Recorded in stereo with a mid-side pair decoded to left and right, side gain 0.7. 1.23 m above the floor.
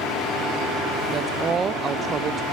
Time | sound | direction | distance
1.1 | a woman speaking | 30° right | 0.6 m